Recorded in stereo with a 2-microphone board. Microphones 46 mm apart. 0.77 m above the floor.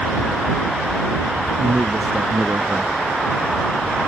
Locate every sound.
1.6 s a man speaking: 70° right (ahead or behind)